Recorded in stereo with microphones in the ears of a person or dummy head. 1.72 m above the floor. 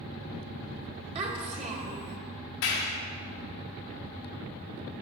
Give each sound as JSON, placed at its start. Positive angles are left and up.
{"t": 1.1, "sound": "a child speaking", "side_deg": -35, "distance_m": 1.5}
{"t": 2.6, "sound": "a clap", "side_deg": 55, "distance_m": 1.1}